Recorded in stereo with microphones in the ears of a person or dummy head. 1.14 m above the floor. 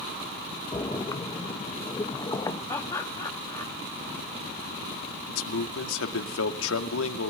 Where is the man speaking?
90° left, 2.0 m.